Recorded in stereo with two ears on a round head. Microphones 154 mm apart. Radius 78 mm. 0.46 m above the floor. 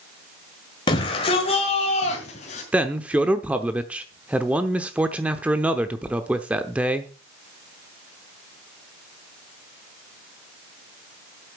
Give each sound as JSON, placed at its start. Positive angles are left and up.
{"t": 0.9, "sound": "a shout", "side_deg": 25, "distance_m": 1.8}
{"t": 2.7, "sound": "a man speaking", "side_deg": -10, "distance_m": 0.8}